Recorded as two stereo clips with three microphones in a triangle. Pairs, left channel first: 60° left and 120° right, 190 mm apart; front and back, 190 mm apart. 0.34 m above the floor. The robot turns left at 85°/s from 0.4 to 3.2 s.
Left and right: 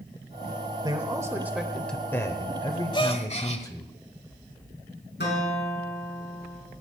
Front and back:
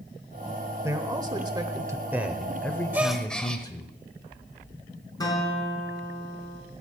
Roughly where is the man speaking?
Behind right.